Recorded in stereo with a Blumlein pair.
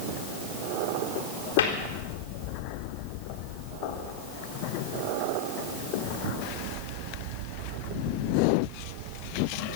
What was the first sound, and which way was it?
A cupboard door, 65° left.